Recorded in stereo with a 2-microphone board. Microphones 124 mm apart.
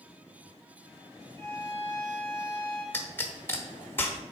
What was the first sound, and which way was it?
A violin, 35° right (ahead or behind).